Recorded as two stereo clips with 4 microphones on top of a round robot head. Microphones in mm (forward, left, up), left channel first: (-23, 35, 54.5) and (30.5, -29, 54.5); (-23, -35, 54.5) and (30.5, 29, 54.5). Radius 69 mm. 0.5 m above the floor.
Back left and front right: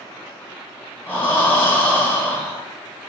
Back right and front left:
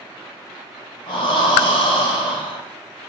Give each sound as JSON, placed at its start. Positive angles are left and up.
{"t": 1.1, "sound": "breathing", "azimuth_deg": -155, "distance_m": 0.8}